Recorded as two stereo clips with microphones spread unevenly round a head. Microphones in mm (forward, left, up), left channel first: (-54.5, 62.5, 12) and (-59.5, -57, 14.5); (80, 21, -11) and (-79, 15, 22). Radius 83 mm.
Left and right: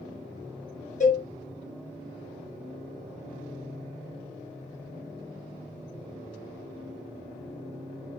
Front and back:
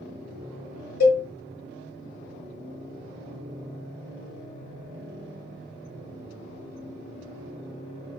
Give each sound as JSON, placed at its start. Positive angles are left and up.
{"t": 1.0, "sound": "a cowbell", "azimuth_deg": 35, "distance_m": 1.1}